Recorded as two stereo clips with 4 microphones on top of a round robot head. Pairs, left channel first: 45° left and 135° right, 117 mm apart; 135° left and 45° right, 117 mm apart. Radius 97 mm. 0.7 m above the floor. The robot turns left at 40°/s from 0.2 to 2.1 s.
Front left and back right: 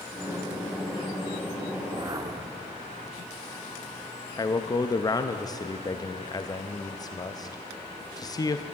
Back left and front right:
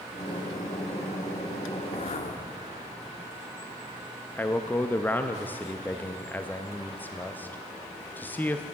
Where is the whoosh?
175° left, 1.1 m; by 2.6 s 165° left, 1.1 m.